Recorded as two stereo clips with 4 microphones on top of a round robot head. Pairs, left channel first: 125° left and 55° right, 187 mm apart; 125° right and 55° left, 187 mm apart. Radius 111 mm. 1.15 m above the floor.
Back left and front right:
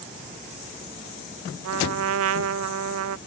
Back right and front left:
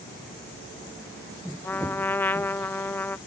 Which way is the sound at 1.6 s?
45° right.